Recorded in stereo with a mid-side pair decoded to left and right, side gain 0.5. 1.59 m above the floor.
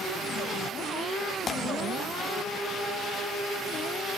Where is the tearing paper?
35° left, 0.5 m.